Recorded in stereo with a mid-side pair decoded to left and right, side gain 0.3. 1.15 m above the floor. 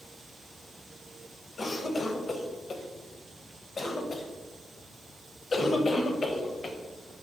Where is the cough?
55° left, 0.6 m.